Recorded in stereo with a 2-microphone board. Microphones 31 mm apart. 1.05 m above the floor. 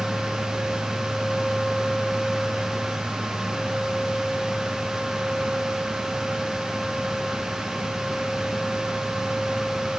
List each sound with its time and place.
Only background noise.